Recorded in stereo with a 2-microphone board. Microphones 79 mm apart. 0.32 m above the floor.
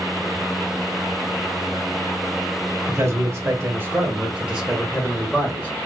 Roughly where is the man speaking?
Right.